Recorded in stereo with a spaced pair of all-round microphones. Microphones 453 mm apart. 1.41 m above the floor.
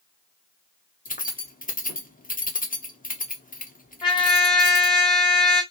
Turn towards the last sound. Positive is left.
turn(degrees=10)  # may be behind; listen again after turning